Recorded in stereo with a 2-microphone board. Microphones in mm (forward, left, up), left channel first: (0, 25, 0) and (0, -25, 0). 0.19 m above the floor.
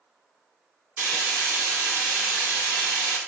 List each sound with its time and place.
1.0 s frying: 35° right (ahead or behind), 1.2 m